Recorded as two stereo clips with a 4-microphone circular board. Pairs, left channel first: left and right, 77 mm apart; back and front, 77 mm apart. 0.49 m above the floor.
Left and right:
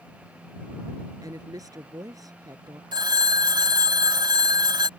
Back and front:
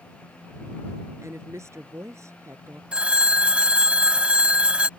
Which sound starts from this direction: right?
A phone ringing, at 2.9 s.